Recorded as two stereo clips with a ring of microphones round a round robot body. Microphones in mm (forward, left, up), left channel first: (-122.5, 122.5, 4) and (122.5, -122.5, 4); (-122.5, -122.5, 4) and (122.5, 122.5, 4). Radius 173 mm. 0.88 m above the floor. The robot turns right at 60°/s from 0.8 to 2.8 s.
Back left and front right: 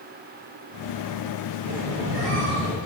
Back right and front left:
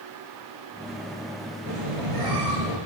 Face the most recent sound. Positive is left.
turn(degrees=60)